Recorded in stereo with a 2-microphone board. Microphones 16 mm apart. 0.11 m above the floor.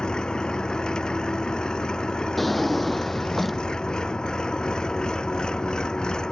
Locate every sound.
0.0 s an engine running: 65° left (ahead or behind)
2.4 s a drawer: 5° left (ahead or behind)